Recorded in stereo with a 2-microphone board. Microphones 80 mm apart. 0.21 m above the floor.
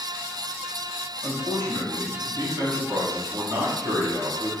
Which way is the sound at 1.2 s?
45° right (ahead or behind).